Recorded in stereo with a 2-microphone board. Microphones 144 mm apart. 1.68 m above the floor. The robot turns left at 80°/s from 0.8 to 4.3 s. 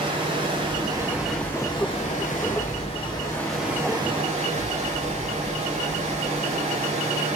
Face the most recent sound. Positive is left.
turn(degrees=-60)